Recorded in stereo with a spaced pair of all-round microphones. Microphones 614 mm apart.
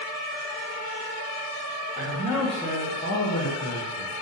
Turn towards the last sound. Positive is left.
turn(degrees=65)  # may be behind; listen again after turning